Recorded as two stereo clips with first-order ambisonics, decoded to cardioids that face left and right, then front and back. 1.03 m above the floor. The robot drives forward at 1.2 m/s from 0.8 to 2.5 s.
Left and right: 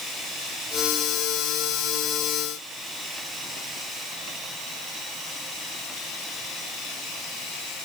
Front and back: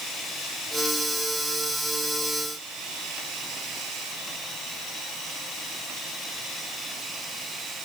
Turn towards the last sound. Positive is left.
No sound to turn to.